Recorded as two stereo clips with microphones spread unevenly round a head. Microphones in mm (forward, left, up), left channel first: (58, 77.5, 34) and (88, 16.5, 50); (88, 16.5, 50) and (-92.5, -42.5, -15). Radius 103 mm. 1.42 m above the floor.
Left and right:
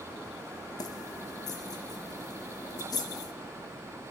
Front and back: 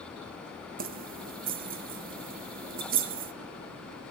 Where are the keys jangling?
150° left, 0.6 m.